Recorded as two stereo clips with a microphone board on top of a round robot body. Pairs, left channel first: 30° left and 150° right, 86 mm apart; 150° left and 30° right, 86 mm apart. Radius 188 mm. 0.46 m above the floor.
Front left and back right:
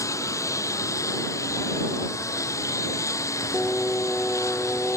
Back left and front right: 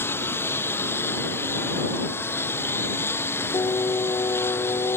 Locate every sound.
0.0 s a lawn mower: 85° left
3.5 s singing: 105° left